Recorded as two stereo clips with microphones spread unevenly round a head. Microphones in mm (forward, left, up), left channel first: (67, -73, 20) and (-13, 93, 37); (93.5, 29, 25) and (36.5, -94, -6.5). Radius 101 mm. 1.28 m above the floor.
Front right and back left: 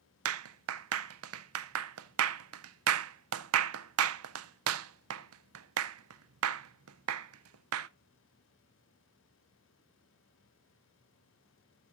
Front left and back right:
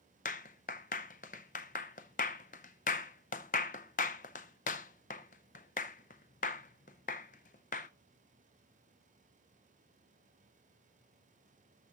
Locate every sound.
0.2 s a clap: 115° left, 0.6 m